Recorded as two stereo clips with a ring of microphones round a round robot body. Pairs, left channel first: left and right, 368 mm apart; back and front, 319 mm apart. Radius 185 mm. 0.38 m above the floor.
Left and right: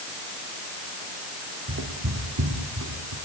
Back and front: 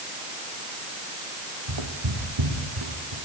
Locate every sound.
1.7 s footsteps: 25° right, 7 m; by 3.1 s 35° right, 7.5 m